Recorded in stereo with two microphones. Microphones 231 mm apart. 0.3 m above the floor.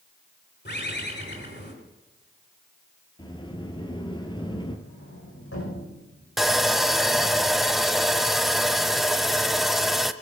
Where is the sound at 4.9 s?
75° left (ahead or behind), 6.5 m.